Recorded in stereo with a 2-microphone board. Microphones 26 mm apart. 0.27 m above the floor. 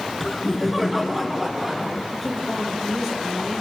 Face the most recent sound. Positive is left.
turn(degrees=-5)  # may be behind; listen again after turning